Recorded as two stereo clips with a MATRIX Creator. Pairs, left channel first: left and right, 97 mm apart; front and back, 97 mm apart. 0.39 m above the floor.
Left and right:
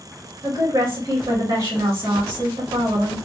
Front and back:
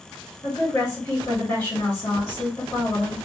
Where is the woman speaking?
50° right, 1.9 m.